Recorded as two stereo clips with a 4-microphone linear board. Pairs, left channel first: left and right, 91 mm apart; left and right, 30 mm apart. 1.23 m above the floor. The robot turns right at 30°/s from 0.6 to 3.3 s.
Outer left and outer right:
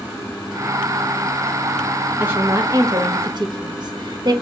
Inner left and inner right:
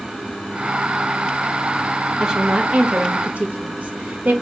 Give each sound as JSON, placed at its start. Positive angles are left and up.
{"t": 2.2, "sound": "a woman speaking", "side_deg": -20, "distance_m": 1.1}